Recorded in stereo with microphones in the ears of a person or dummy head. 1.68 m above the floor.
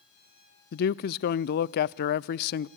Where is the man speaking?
50° left (ahead or behind), 0.5 m.